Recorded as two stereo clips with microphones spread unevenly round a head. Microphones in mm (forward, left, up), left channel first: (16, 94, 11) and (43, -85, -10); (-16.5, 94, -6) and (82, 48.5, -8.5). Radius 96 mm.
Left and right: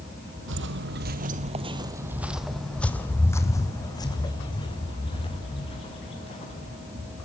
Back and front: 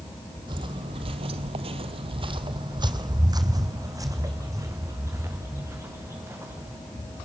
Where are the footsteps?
80° right, 1.8 m; by 6.8 s 40° left, 6.5 m.